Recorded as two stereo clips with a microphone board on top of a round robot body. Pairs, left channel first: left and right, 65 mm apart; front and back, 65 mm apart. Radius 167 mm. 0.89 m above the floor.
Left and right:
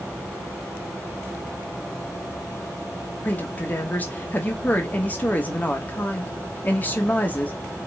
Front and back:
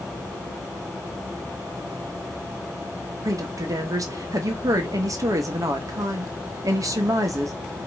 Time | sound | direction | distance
3.2 | a woman speaking | 155° left | 1.1 m